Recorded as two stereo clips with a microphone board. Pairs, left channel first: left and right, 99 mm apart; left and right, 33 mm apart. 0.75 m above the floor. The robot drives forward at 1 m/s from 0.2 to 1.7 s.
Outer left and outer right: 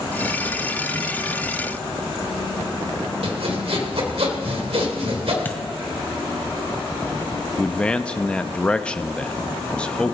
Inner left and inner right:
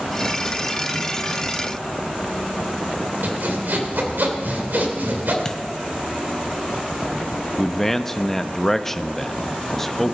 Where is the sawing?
75° right (ahead or behind), 2.5 m.